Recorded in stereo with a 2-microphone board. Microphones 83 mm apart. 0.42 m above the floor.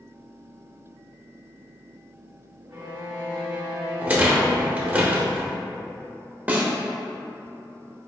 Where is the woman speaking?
No woman speaking in this recording.